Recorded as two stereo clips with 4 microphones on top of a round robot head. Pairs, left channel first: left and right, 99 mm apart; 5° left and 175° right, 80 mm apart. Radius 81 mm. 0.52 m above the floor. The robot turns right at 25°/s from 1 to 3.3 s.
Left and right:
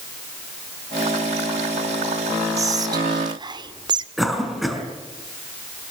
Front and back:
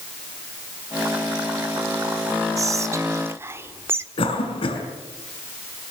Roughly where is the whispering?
Behind right.